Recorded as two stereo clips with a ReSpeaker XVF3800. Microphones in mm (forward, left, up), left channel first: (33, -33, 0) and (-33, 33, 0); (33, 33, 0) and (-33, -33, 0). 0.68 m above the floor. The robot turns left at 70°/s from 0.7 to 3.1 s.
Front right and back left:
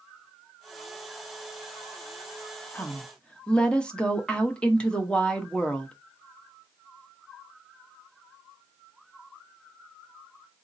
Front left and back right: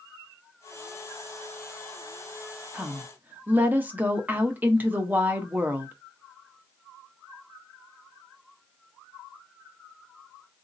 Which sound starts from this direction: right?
A woman speaking, at 2.7 s.